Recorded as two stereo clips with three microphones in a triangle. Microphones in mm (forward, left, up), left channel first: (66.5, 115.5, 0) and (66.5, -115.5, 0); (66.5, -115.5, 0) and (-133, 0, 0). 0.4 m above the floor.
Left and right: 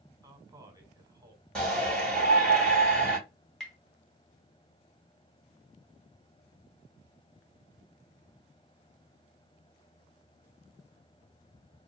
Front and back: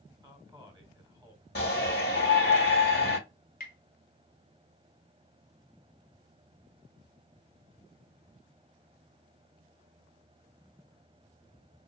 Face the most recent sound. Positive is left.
turn(degrees=0)